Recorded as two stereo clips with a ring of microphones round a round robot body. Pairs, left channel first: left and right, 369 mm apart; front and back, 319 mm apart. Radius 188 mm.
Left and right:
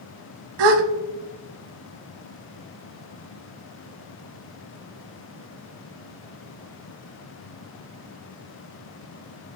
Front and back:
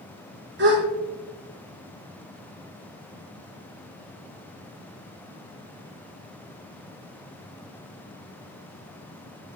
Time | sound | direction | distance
0.6 | a gasp | 115° right | 0.7 m